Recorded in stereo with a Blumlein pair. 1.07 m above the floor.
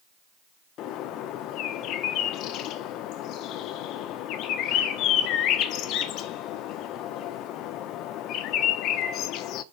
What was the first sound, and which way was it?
A bird, 35° left.